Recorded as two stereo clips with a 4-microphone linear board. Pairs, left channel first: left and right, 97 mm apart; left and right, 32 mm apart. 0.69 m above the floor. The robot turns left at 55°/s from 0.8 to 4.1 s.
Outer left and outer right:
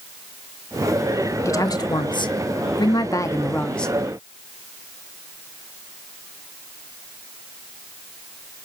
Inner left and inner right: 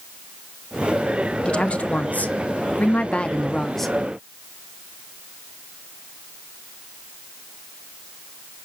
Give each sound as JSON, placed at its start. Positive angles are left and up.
{"t": 1.4, "sound": "a woman speaking", "azimuth_deg": 140, "distance_m": 0.8}